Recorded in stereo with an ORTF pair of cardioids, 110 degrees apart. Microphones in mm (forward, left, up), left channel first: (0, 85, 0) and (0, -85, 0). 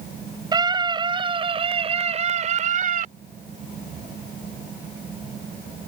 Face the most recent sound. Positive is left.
turn(degrees=-55)